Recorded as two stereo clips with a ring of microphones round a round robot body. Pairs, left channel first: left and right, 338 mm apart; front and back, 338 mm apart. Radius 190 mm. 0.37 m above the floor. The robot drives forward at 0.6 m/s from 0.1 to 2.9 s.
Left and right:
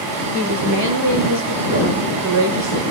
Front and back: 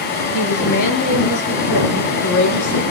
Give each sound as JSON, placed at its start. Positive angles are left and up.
{"t": 0.3, "sound": "a woman speaking", "azimuth_deg": -30, "distance_m": 6.5}